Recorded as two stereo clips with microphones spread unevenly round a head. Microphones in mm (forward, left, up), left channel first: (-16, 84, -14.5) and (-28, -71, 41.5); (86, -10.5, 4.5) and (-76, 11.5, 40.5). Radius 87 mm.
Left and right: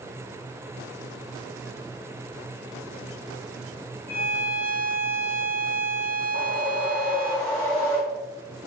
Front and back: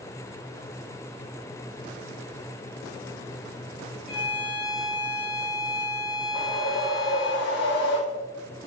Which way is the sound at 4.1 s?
15° left.